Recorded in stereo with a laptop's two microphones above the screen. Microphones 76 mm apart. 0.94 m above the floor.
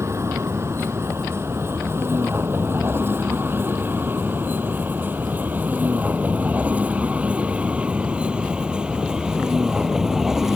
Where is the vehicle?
40° right (ahead or behind); by 10.6 s 5° right (ahead or behind).